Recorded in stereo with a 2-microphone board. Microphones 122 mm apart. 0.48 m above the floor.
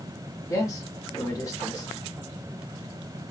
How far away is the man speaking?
About 1.5 m.